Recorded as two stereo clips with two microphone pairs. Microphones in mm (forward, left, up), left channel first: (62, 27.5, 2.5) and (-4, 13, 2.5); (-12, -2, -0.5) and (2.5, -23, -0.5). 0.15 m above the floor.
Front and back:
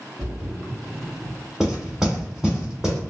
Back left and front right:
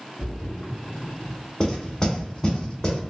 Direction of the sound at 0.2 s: 135° left.